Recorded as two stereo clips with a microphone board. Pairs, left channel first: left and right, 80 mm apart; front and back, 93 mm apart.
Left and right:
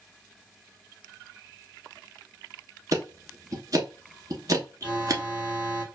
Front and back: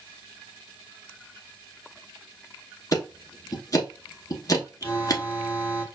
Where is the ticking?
50° right, 0.9 m.